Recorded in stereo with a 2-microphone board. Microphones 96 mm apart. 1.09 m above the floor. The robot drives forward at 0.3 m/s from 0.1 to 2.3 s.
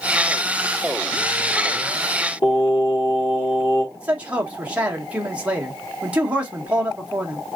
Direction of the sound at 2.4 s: 55° left (ahead or behind).